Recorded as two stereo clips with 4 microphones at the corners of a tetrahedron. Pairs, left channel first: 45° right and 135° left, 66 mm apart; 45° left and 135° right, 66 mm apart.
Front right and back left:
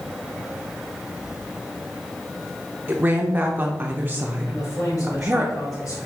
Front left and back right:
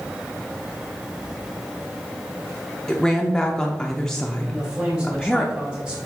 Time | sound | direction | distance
2.9 | a woman speaking | 120° left | 0.7 m
4.5 | a man speaking | 60° right | 3 m